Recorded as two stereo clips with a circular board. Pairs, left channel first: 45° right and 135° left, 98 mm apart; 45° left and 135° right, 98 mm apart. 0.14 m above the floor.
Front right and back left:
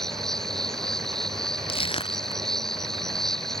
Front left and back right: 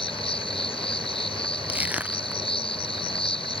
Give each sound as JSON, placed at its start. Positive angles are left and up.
{"t": 0.0, "sound": "an insect", "azimuth_deg": 40}
{"t": 1.7, "sound": "crushing", "azimuth_deg": -60}